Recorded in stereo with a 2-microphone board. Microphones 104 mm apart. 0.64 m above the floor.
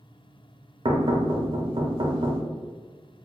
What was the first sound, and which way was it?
Knocking, 55° right (ahead or behind).